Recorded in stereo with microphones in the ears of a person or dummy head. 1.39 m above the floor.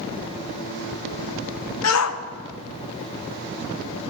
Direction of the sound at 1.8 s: 80° left.